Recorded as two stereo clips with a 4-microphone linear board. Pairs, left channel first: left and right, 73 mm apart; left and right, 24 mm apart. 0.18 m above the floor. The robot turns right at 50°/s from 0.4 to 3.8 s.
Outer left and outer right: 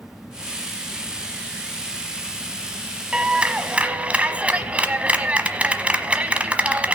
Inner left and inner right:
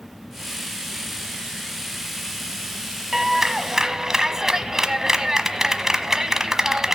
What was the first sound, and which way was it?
A clap, 15° right (ahead or behind).